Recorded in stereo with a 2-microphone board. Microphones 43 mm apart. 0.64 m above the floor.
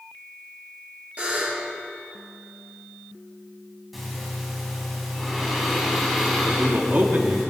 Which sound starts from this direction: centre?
Breathing, at 3.9 s.